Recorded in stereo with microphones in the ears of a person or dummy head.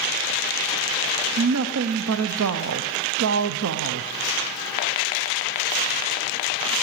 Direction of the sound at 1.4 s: 80° right.